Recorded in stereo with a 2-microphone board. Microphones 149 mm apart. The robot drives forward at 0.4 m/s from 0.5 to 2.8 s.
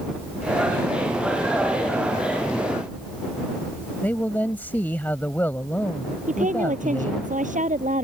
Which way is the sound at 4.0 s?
10° left (ahead or behind).